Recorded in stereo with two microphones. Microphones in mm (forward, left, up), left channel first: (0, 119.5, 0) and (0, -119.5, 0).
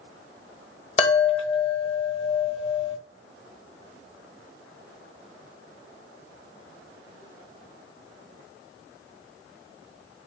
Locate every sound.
1.0 s a chime: 25° left (ahead or behind), 1.1 m